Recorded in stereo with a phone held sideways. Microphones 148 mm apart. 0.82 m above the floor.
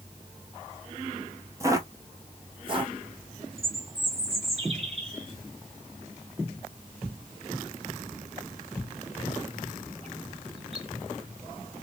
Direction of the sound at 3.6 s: 40° right (ahead or behind).